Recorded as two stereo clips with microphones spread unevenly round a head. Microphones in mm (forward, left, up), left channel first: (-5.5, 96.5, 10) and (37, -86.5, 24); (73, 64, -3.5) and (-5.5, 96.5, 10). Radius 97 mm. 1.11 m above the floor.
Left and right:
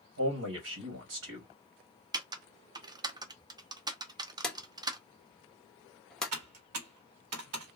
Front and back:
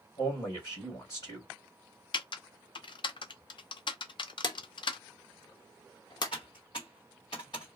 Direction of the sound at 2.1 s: 5° right.